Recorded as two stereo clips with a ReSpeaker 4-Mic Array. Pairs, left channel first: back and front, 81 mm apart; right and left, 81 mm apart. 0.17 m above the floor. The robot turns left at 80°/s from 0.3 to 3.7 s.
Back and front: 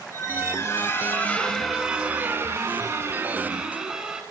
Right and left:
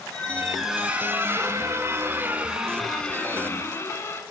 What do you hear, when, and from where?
0.1 s a squeak: 160° right, 1.2 m; by 4.2 s 70° right, 1.2 m